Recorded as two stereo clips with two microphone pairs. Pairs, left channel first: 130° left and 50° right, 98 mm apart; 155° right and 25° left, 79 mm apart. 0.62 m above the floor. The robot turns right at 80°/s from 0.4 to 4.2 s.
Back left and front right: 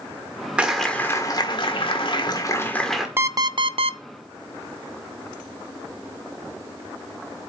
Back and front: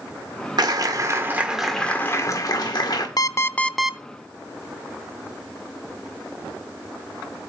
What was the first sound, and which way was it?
A clap, 30° left.